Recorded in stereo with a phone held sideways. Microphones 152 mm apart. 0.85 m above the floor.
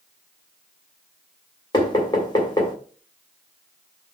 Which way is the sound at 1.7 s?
30° left (ahead or behind).